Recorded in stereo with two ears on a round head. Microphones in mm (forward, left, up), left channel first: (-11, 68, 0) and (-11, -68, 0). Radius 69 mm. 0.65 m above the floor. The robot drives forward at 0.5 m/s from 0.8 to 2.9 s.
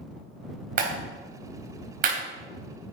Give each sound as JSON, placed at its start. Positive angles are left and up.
{"t": 0.8, "sound": "a clap", "side_deg": -70, "distance_m": 3.5}